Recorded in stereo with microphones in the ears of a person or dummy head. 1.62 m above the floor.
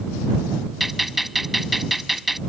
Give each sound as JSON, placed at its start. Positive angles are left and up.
{"t": 0.8, "sound": "a gunshot", "side_deg": 0}